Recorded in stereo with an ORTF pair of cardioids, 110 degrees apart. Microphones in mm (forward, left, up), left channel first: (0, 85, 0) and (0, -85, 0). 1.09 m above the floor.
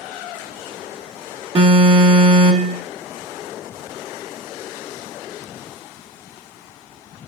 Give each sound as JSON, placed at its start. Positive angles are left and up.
{"t": 1.6, "sound": "an alarm", "azimuth_deg": -35, "distance_m": 1.7}